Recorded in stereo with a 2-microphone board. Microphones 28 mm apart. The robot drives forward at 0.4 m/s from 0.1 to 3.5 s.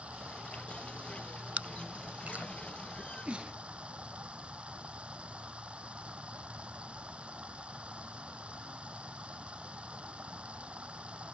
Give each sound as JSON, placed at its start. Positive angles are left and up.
{"t": 0.0, "sound": "running water", "side_deg": -50}
{"t": 1.6, "sound": "chewing", "side_deg": -55}
{"t": 3.0, "sound": "a sneeze", "side_deg": -45}